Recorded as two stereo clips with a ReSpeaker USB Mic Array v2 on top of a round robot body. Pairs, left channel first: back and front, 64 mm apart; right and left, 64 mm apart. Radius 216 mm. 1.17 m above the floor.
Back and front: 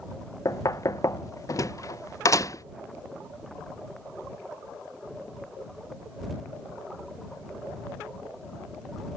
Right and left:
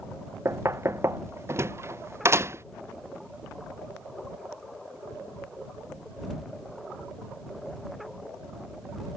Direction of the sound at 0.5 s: 140° left.